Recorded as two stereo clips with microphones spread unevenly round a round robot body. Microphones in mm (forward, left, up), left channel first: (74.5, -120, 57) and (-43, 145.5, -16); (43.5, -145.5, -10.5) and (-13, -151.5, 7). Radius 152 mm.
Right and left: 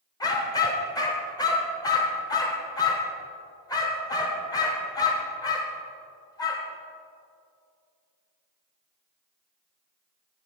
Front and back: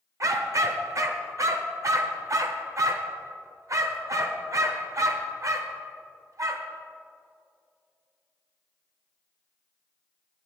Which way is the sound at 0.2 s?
145° right.